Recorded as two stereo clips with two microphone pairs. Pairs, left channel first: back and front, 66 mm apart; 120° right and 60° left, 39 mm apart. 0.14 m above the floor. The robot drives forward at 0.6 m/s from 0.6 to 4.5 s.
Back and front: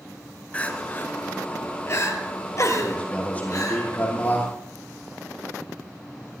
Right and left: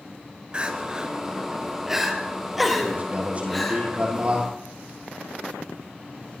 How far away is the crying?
About 1.6 m.